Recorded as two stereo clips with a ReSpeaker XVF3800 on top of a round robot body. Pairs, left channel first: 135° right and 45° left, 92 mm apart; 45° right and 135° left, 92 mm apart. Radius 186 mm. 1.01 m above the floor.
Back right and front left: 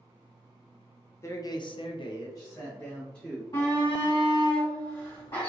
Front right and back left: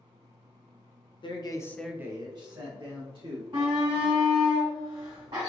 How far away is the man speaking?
About 1.0 m.